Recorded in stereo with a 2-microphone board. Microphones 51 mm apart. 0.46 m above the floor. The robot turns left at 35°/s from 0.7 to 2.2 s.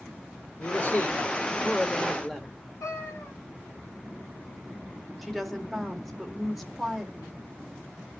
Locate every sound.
0.6 s a man speaking: 65° left, 1.4 m; by 2.5 s 10° left, 1.4 m
2.8 s a cat meowing: 80° left, 2.0 m
5.2 s a woman speaking: centre (ahead or behind), 1.6 m